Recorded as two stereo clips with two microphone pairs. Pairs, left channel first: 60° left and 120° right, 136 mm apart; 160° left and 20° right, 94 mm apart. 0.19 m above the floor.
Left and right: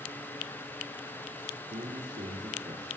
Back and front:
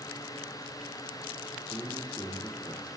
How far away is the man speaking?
About 4 m.